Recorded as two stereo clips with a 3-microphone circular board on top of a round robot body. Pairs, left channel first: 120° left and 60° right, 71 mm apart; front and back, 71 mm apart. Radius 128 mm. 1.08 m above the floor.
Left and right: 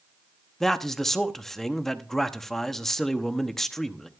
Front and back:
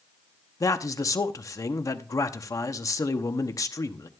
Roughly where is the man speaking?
Ahead left.